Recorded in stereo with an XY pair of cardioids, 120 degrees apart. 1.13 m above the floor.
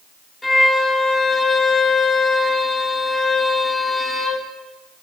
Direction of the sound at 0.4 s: 10° left.